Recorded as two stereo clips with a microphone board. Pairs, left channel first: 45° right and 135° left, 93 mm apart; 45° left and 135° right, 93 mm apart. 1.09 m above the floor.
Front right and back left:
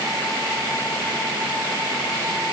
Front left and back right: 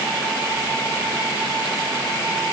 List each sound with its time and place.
Only background noise.